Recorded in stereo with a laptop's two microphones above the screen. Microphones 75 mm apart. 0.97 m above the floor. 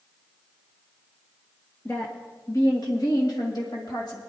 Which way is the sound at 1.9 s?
25° left (ahead or behind).